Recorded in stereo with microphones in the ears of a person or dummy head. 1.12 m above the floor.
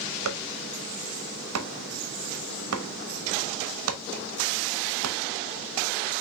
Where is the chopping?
80° right, 0.9 m.